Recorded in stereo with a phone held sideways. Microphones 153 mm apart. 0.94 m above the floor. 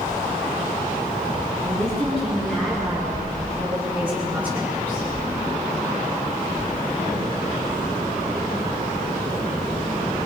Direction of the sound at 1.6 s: 5° left (ahead or behind).